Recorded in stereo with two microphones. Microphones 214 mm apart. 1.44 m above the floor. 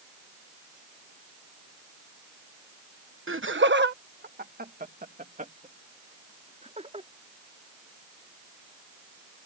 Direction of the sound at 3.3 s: 70° right (ahead or behind).